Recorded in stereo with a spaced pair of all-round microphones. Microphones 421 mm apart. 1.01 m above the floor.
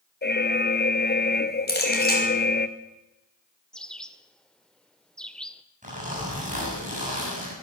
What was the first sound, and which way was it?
An alarm, 25° left (ahead or behind).